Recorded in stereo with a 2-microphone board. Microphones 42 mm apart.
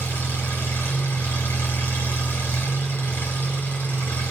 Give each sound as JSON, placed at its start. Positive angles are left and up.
{"t": 0.0, "sound": "an engine running", "side_deg": 75, "distance_m": 5.0}